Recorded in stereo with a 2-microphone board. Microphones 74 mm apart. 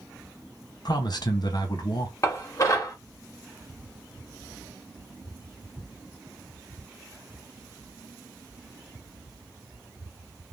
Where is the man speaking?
65° left (ahead or behind), 0.9 m.